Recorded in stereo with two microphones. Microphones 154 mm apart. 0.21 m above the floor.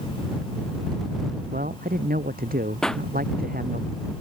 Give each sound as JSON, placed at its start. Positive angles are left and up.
{"t": 1.5, "sound": "a man speaking", "side_deg": -70}
{"t": 2.8, "sound": "a pop", "side_deg": 5}